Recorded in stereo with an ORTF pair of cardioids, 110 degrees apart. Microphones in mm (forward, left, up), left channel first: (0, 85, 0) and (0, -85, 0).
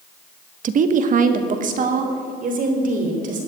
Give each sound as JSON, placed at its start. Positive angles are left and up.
{"t": 0.6, "sound": "a woman speaking", "azimuth_deg": -50, "distance_m": 1.1}